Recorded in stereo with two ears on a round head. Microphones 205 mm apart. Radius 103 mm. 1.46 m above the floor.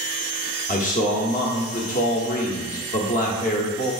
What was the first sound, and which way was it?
A man speaking, 35° left (ahead or behind).